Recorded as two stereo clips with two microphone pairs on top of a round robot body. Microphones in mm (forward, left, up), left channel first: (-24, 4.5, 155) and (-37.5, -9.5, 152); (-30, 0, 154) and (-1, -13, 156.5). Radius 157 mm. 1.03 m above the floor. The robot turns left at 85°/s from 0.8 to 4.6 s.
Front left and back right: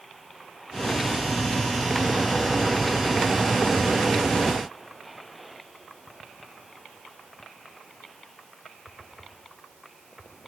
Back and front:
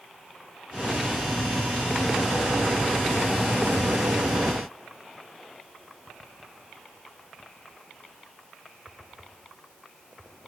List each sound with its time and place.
Only background noise.